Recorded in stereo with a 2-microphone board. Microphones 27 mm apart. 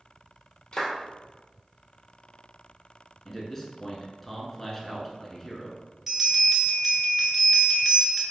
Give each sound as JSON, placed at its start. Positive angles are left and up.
{"t": 0.7, "sound": "a clap", "side_deg": 30, "distance_m": 1.7}
{"t": 3.2, "sound": "a man speaking", "side_deg": 15, "distance_m": 1.1}
{"t": 6.1, "sound": "a bell", "side_deg": -10, "distance_m": 1.3}